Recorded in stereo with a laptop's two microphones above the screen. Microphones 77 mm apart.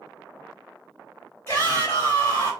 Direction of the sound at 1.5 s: 25° left (ahead or behind).